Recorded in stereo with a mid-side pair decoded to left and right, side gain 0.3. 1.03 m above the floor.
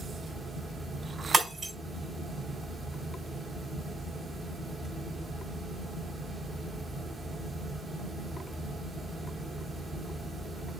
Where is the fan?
60° right, 1.4 m.